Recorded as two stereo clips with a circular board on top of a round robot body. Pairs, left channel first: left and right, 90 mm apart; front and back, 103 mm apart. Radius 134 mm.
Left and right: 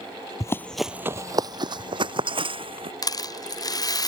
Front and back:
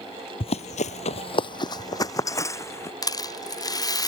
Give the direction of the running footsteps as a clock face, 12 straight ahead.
11 o'clock.